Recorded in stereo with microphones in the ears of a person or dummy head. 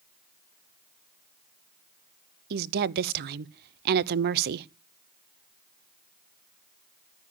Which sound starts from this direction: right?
A woman speaking, at 2.5 s.